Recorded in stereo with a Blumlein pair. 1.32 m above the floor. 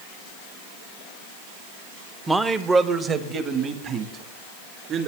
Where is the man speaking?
5° right, 0.7 m; by 5.1 s 35° right, 3 m.